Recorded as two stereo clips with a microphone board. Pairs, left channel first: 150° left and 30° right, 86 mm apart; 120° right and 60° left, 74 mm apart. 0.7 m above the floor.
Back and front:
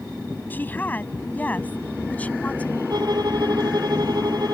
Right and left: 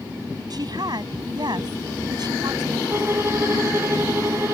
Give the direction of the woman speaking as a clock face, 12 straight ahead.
9 o'clock.